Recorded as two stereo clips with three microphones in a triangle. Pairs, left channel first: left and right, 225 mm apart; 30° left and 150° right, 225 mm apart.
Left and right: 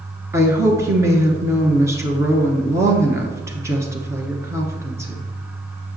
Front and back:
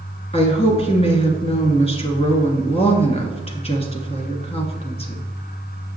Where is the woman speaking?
20° right, 1.3 m.